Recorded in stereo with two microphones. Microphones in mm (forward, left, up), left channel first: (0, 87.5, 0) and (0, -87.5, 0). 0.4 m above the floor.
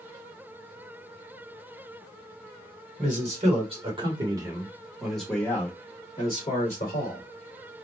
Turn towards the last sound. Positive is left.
turn(degrees=45)  # may be behind; listen again after turning